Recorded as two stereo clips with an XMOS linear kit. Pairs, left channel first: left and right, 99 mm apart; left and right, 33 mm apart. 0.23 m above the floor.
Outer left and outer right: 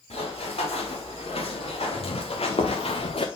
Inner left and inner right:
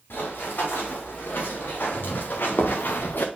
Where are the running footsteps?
85° left, 4.5 m; by 3.3 s 75° left (ahead or behind), 1.1 m.